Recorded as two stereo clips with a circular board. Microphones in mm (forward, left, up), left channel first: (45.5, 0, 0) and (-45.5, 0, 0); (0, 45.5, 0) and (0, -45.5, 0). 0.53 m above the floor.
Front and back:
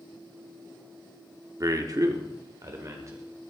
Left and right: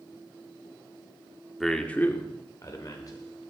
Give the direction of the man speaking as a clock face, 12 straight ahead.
6 o'clock.